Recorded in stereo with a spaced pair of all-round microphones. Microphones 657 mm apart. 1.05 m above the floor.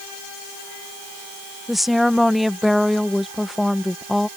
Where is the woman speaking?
Centre (ahead or behind).